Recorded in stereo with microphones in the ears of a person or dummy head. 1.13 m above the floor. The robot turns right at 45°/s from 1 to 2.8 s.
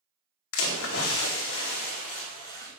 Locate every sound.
0.5 s a splash: 90° left, 1.7 m; by 2.7 s 165° left, 1.7 m